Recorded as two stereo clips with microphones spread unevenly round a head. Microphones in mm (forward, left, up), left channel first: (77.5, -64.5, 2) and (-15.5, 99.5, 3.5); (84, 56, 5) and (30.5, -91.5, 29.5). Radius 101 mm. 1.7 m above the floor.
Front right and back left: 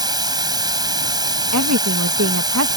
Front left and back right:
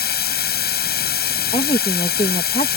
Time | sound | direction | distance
0.0 | running water | 50° left | ?
1.5 | a woman speaking | 135° left | ?